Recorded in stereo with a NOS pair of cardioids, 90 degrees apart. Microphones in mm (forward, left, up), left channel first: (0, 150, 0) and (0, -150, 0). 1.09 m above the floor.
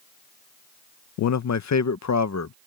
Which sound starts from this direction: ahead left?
A man speaking, at 1.2 s.